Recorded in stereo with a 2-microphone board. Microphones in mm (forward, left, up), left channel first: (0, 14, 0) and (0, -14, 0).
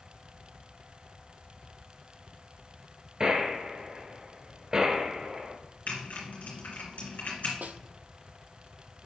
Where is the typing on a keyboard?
65° left (ahead or behind), 3 m.